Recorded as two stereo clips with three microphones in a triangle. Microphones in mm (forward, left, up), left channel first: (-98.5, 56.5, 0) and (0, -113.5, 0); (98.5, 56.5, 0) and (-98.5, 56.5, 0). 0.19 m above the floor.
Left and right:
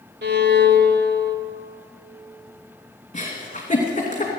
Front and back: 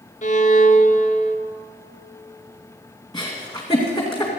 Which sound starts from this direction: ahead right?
A violin, at 0.2 s.